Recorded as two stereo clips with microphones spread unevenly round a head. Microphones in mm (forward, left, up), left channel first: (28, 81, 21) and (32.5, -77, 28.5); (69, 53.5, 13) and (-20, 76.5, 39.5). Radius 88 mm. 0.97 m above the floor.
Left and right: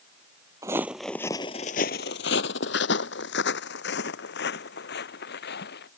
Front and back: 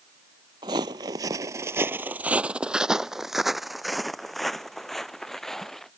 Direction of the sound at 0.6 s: 160° right.